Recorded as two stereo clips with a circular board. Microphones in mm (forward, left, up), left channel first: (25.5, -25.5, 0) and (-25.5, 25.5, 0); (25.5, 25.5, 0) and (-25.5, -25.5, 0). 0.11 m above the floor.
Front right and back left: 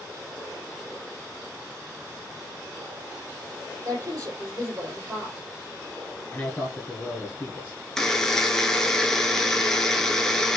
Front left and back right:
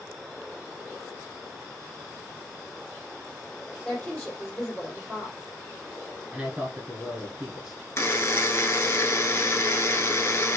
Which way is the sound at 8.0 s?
35° left.